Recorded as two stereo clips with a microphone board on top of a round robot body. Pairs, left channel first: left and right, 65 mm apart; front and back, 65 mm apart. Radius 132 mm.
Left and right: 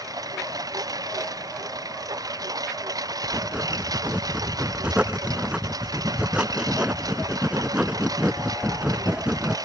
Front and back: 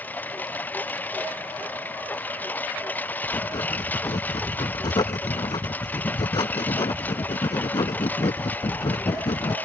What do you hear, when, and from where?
0.0 s a lawn mower: 65° right
3.2 s writing: 15° right